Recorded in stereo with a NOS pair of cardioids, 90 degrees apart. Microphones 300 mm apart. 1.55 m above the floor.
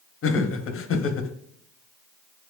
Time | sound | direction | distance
0.2 | laughter | 45° left | 0.8 m